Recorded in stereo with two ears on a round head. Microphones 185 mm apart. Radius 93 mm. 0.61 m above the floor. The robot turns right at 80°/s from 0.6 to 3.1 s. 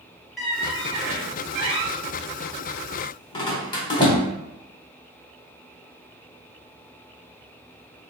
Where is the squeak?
Centre (ahead or behind), 0.8 m; by 4.2 s 20° left (ahead or behind), 0.8 m.